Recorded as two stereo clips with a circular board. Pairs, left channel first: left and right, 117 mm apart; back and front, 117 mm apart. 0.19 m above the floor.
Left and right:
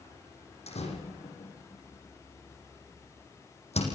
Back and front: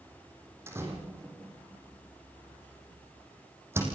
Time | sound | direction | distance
0.7 | a door slam | 70° left | 6.5 m